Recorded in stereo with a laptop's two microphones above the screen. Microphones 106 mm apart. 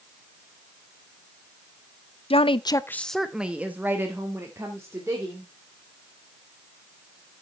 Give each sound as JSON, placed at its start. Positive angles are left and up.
{"t": 2.3, "sound": "a woman speaking", "side_deg": 70, "distance_m": 0.6}